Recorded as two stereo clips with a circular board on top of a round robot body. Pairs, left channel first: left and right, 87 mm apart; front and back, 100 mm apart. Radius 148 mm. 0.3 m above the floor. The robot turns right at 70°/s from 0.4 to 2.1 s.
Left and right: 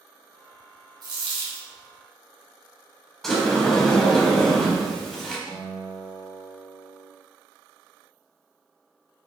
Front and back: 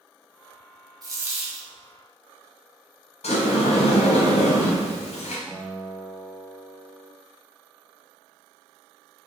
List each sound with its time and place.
1.0 s a dropped coin: 130° right, 1.2 m; by 1.7 s 85° right, 1.2 m
3.2 s a sliding door: straight ahead, 0.9 m
5.5 s a guitar: 100° left, 1.7 m